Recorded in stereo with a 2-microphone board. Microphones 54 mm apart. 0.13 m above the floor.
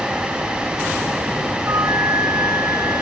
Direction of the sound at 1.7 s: 85° right.